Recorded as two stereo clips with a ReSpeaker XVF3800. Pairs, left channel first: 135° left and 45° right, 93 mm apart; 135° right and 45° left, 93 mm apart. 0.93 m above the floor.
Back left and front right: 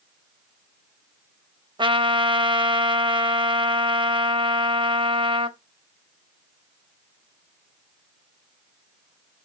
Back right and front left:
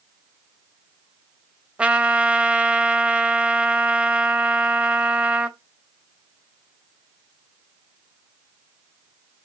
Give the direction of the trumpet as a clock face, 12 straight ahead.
1 o'clock.